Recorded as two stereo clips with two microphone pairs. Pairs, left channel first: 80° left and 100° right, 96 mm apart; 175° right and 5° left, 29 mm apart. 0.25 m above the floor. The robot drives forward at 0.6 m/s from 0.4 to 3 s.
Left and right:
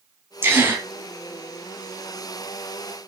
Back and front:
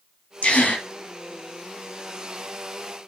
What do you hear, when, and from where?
0.4 s a gasp: 155° right, 2 m; by 0.8 s 160° right, 2.5 m